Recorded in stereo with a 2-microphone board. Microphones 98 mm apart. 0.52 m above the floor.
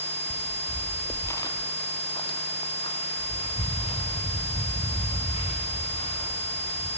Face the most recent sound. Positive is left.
turn(degrees=80)